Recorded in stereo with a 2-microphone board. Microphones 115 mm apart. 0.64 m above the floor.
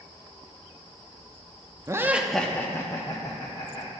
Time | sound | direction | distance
1.9 | laughter | 25° right (ahead or behind) | 0.6 m